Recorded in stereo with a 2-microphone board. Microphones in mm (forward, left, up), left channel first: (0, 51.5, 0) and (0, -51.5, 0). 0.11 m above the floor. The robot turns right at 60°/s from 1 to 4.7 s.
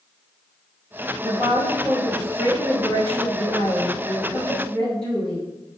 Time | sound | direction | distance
1.2 | a woman speaking | 40° right | 1.5 m